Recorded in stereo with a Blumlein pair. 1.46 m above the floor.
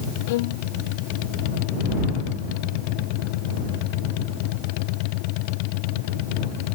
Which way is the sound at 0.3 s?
50° left.